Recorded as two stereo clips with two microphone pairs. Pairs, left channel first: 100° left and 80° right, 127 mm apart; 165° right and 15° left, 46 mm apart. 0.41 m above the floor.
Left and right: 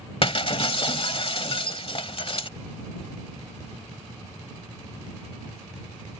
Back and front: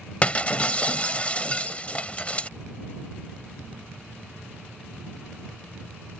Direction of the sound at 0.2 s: 140° left.